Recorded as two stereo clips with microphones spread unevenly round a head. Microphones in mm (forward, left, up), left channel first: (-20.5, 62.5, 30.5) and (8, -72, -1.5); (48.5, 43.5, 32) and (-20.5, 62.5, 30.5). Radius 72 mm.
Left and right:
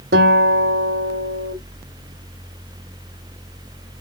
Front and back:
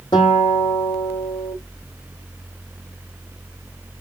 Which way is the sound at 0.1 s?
60° right.